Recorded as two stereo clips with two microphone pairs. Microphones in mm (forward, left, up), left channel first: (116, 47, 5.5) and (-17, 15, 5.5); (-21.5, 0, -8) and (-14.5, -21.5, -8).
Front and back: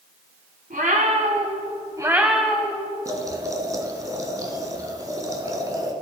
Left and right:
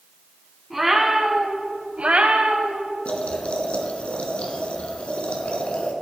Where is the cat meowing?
160° right, 1.8 m; by 2.9 s 55° right, 1.6 m.